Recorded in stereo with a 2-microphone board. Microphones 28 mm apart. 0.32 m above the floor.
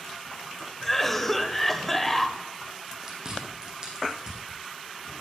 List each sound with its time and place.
0.8 s a cough: 10° left (ahead or behind), 1.1 m
3.0 s chewing: 20° right (ahead or behind), 4.5 m